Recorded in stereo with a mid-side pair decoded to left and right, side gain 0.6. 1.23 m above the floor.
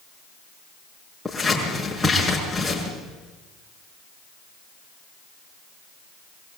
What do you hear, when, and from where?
1.2 s scissors: 5° left, 6.5 m